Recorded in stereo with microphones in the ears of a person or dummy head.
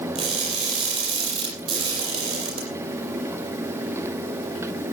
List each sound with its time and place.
0.1 s crushing: 30° right (ahead or behind), 6 m